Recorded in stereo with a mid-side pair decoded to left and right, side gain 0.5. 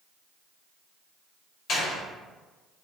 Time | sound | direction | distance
1.7 | a door slam | 60° left | 1.7 m